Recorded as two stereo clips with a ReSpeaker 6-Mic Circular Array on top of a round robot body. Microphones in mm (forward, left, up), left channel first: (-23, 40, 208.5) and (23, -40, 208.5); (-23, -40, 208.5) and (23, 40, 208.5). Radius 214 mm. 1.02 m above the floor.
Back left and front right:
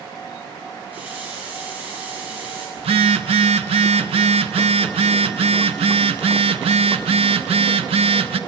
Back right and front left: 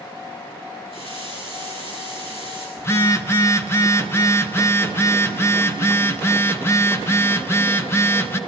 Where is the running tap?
135° right, 8.5 m.